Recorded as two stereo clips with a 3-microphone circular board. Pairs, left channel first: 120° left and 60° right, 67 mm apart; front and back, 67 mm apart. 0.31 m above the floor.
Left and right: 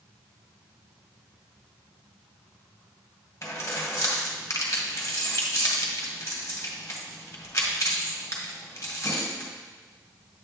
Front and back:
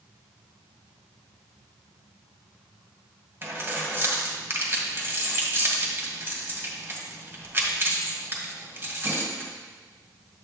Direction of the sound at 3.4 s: 140° left.